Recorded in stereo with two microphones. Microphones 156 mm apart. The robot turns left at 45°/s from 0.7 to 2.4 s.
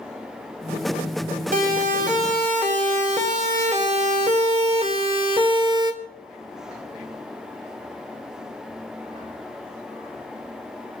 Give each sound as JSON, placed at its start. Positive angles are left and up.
{"t": 1.5, "sound": "a siren", "side_deg": -60, "distance_m": 3.0}